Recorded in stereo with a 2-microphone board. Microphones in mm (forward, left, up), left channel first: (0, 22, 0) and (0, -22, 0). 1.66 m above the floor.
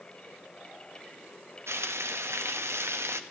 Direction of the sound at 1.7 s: 80° right.